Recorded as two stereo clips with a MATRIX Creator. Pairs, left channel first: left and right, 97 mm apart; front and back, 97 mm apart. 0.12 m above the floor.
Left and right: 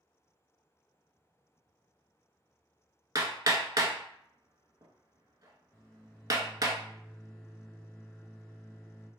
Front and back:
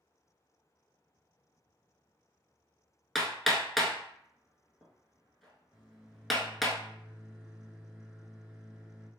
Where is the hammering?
90° right, 0.6 m.